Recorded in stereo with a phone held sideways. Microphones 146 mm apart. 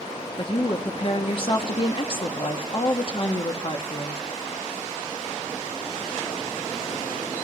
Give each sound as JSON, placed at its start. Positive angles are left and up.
{"t": 0.4, "sound": "a woman speaking", "side_deg": 40, "distance_m": 1.1}